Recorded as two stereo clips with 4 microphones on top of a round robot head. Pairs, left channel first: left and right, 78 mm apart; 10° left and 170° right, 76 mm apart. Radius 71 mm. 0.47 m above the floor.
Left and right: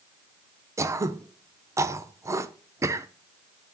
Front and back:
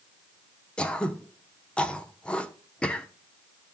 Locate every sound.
0.8 s throat clearing: 60° right, 0.8 m